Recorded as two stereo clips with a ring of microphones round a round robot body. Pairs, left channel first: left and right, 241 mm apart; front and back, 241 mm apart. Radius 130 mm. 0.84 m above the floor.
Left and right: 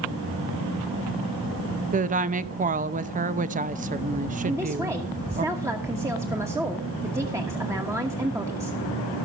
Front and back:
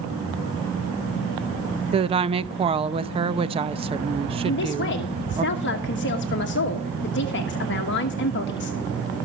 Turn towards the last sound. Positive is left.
turn(degrees=-15)